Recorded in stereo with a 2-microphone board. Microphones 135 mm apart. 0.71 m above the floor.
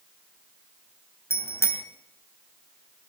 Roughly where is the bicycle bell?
Centre.